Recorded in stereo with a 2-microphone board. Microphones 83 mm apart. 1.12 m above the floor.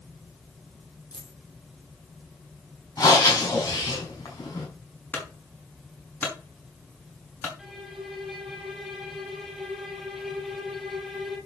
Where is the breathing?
45° left (ahead or behind), 5 m.